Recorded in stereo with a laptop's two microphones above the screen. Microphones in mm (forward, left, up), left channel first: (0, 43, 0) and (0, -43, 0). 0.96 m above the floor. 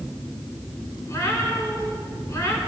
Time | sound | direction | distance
1.1 | a cat meowing | 35° left (ahead or behind) | 5.5 m